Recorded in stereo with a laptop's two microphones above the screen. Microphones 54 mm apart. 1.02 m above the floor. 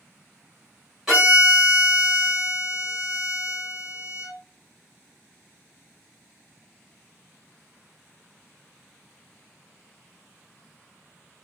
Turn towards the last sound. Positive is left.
turn(degrees=-5)  # may be behind; listen again after turning